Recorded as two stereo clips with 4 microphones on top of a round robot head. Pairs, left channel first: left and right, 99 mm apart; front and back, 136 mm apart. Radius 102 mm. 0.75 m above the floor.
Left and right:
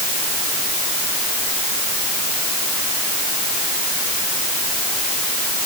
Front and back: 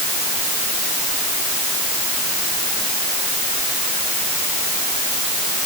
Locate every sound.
Only background noise.